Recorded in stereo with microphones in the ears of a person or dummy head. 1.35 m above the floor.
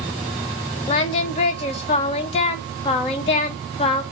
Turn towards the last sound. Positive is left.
turn(degrees=35)  # may be behind; listen again after turning